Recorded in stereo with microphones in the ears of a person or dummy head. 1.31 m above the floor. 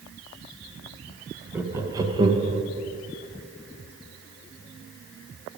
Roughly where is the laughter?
Centre.